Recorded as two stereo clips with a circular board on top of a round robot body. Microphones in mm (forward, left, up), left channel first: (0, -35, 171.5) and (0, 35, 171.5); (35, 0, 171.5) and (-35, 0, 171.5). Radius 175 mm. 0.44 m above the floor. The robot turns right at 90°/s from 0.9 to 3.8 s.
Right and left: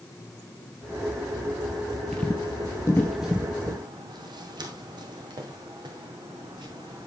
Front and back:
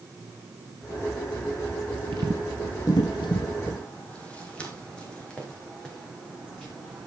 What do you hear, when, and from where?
2.1 s footsteps: 175° right, 0.5 m; by 7.1 s 80° left, 3 m